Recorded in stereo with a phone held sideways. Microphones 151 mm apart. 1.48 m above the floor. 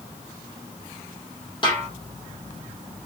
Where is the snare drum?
35° left (ahead or behind), 2 m.